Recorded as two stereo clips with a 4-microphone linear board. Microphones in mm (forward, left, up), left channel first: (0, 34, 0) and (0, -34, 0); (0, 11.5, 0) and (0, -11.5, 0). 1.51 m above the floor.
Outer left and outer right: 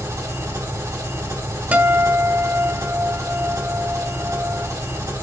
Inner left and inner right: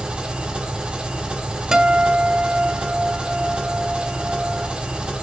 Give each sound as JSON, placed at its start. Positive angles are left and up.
{"t": 0.0, "sound": "an engine running", "side_deg": -55, "distance_m": 3.5}
{"t": 1.7, "sound": "a guitar", "side_deg": -25, "distance_m": 0.9}